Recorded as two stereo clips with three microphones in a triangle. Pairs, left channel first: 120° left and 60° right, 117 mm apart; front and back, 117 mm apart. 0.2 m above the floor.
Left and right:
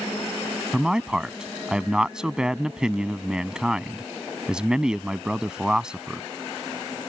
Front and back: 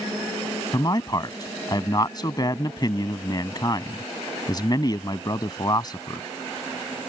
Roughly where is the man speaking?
Ahead.